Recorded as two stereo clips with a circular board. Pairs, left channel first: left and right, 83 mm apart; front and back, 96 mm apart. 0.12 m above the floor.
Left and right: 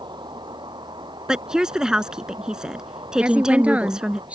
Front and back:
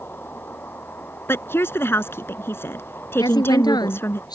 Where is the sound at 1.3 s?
20° right.